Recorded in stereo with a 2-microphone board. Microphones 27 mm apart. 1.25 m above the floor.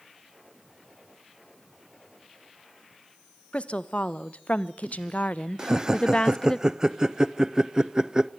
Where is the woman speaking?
45° left (ahead or behind), 1.6 m; by 6.6 s 25° left (ahead or behind), 0.9 m.